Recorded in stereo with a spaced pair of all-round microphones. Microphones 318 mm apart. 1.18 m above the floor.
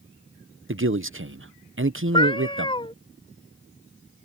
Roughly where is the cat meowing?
Centre.